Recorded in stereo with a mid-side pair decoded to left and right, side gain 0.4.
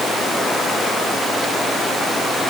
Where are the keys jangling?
I don't hear keys jangling.